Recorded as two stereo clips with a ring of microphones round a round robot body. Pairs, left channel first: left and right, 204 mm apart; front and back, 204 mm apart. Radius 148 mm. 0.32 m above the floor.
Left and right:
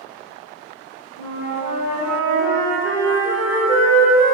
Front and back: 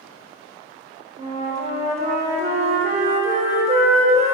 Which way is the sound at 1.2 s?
130° left.